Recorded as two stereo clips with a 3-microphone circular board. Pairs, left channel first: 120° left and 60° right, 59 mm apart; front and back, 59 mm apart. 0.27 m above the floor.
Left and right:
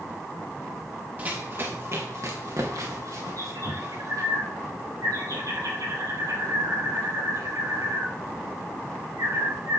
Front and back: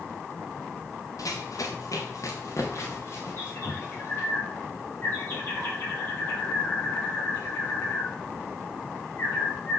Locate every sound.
1.2 s running footsteps: straight ahead, 2.5 m; by 4.3 s 50° right, 5.5 m
3.4 s a bird: 55° right, 6 m